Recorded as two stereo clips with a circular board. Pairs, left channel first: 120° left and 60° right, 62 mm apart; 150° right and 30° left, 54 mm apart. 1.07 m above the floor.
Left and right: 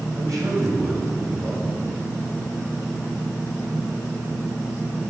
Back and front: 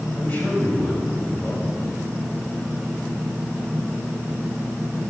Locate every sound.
0.1 s a man speaking: 90° right, 6 m